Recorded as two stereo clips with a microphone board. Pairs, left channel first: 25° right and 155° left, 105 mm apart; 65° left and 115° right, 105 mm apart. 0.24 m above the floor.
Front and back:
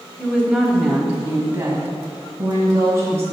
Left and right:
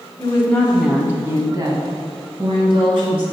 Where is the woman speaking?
45° left, 1.1 m; by 3.2 s 140° right, 3 m.